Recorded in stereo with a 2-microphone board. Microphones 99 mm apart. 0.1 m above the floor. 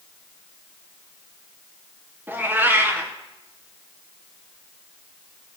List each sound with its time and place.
2.3 s a cat meowing: 20° right (ahead or behind), 2.5 m